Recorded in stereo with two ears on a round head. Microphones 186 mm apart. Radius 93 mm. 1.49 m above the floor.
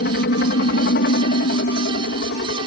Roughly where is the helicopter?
Left.